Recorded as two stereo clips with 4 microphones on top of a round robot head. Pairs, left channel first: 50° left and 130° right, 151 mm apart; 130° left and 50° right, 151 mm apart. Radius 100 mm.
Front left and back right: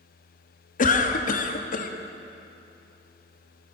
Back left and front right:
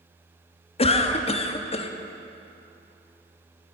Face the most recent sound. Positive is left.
turn(degrees=80)